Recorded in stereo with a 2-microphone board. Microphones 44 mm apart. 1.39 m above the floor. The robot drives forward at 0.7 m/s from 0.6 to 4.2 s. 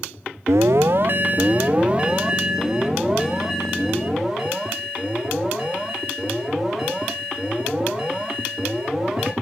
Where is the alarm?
70° right (ahead or behind), 0.5 m; by 9.3 s 10° right (ahead or behind), 2.5 m.